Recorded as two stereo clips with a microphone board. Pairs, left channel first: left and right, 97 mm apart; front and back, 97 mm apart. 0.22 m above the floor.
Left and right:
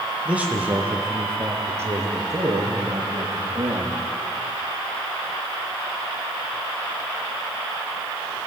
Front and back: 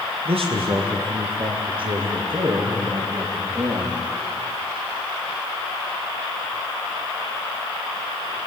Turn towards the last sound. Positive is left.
turn(degrees=-135)